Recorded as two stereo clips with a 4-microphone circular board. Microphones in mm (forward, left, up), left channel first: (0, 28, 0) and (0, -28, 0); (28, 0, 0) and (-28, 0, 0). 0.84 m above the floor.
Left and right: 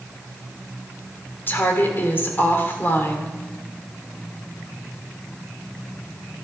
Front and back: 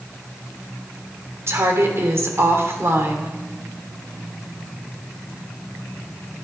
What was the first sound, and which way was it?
A woman speaking, 140° left.